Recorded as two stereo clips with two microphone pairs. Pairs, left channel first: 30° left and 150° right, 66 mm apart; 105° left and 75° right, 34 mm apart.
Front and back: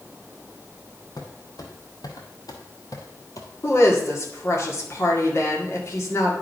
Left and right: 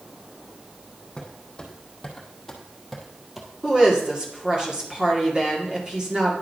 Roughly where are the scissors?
I don't hear scissors.